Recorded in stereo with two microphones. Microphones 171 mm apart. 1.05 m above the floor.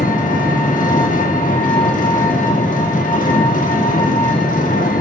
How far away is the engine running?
About 2.0 m.